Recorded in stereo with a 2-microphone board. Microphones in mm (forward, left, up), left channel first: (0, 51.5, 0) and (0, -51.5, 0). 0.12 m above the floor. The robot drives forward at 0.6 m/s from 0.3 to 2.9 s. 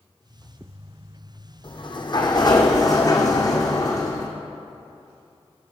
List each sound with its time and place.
1.6 s a sliding door: 55° left (ahead or behind), 1.4 m; by 4.3 s 35° left (ahead or behind), 1.9 m